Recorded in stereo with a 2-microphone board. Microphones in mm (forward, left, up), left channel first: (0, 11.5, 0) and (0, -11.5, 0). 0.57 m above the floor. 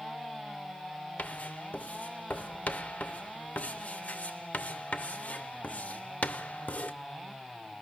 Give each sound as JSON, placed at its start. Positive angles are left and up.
{"t": 1.2, "sound": "writing", "side_deg": 80, "distance_m": 0.7}